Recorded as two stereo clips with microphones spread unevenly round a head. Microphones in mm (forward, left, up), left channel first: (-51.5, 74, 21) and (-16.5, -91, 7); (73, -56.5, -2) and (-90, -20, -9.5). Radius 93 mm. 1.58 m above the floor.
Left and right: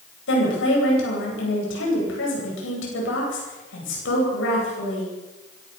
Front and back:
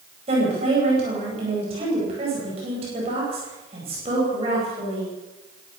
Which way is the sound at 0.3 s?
105° left.